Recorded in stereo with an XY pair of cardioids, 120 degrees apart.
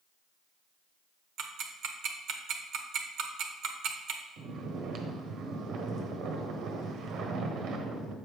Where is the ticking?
65° right, 0.9 m.